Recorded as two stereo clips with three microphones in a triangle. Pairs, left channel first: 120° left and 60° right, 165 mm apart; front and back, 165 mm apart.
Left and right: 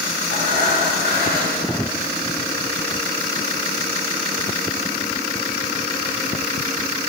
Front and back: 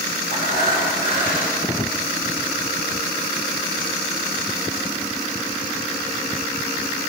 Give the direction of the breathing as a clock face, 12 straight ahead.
1 o'clock.